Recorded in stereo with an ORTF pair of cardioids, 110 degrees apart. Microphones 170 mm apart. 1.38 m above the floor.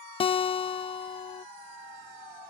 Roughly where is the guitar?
Ahead left.